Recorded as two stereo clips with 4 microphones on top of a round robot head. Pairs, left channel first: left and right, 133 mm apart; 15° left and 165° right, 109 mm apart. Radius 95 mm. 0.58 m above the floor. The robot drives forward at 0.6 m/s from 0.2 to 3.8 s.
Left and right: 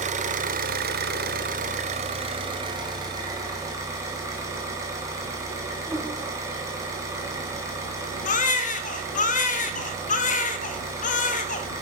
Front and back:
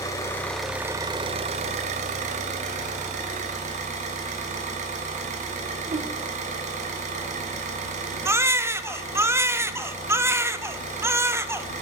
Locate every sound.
0.0 s an engine running: 55° right, 0.7 m; by 11.8 s 160° right, 1.9 m
5.9 s a whoosh: 170° right, 1.1 m
8.2 s a baby crying: 125° left, 0.6 m